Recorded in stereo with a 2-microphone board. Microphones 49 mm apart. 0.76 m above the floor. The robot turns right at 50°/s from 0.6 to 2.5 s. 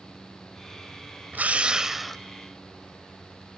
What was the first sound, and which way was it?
A drill, 40° right.